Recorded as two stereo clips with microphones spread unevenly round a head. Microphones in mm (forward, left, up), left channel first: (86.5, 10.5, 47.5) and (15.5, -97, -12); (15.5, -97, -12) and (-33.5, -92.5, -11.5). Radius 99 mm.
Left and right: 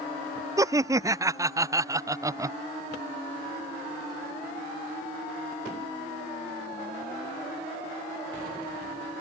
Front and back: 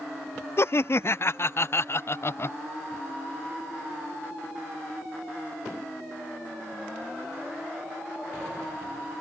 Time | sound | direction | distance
0.6 | laughter | 50° right | ?